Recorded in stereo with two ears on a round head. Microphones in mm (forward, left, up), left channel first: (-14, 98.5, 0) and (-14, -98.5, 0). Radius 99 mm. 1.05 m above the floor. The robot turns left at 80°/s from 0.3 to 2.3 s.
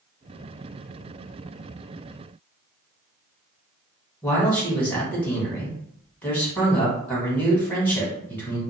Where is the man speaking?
5° left (ahead or behind), 1.7 m.